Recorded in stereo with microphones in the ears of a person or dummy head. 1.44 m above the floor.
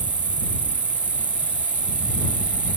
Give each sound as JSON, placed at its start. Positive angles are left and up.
{"t": 0.0, "sound": "an insect", "side_deg": -5}